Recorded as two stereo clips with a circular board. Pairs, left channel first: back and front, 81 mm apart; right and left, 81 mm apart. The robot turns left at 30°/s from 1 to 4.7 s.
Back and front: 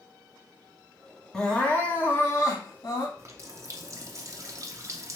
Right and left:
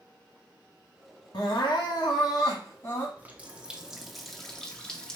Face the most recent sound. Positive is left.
turn(degrees=-15)